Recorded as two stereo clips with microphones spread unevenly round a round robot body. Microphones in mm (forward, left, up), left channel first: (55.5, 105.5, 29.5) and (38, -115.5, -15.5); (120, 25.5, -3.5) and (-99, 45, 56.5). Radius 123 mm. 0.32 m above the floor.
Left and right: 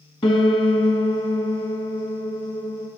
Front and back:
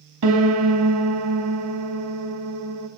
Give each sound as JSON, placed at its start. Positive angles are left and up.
{"t": 0.2, "sound": "a piano", "azimuth_deg": 160, "distance_m": 0.7}